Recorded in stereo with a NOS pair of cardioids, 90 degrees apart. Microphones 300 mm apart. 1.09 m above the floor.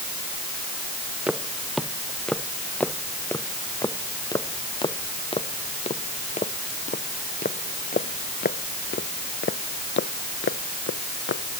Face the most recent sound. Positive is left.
turn(degrees=45)